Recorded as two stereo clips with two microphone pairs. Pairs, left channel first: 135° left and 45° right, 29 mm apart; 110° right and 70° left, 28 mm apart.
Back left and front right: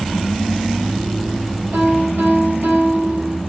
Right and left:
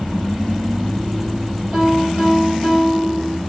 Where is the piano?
15° right, 7.5 m.